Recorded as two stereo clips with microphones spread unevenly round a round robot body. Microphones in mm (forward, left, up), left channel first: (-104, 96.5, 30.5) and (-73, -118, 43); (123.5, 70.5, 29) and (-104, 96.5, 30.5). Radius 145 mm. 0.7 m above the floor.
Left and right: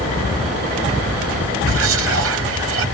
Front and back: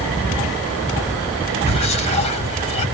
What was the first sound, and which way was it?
Whispering, 70° right.